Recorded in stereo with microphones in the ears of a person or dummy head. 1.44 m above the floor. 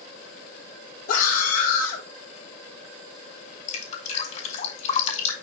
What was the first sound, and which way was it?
A scream, 55° left (ahead or behind).